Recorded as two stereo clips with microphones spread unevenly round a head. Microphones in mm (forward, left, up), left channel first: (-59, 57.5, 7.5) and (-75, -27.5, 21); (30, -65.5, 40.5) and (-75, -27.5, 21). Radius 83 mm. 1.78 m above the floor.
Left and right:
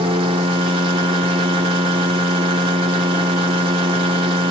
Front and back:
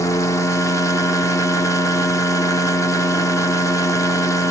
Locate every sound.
0.0 s a machine running: 80° right, 1.4 m